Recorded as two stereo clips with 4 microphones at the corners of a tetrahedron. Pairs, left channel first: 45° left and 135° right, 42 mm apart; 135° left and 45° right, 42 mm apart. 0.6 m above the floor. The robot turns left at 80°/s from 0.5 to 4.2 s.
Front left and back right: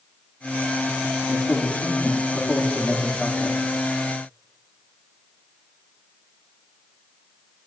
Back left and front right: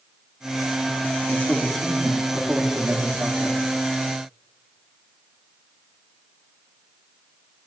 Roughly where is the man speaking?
Left.